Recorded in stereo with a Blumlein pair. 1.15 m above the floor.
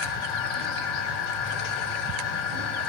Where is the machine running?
40° left, 4 m.